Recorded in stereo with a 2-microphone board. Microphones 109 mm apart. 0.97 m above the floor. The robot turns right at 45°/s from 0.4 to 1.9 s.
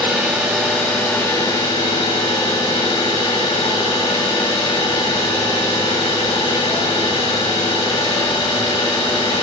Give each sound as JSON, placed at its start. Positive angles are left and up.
{"t": 0.0, "sound": "an engine running", "azimuth_deg": 0, "distance_m": 3.0}